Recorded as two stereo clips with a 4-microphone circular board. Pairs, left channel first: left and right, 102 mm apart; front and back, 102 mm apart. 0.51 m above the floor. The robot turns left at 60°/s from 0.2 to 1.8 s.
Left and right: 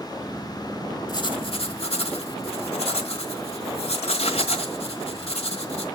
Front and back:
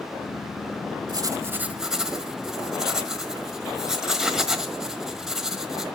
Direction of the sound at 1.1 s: 135° left.